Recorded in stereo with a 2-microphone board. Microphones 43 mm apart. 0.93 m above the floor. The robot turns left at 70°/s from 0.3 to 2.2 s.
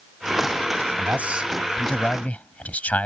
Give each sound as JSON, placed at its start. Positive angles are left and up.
{"t": 1.0, "sound": "a man speaking", "azimuth_deg": -130}